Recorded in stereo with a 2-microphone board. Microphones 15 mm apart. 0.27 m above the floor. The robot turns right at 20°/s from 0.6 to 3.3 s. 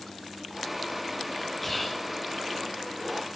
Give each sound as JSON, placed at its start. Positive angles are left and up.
{"t": 1.6, "sound": "whispering", "side_deg": 10, "distance_m": 1.0}